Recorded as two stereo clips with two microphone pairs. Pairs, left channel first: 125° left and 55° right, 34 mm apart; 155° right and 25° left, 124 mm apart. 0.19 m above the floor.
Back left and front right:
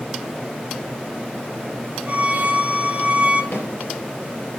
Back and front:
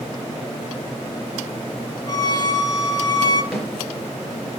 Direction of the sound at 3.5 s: 110° left.